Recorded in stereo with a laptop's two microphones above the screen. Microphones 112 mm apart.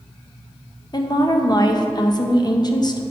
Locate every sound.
0.9 s a woman speaking: 40° left (ahead or behind), 0.6 m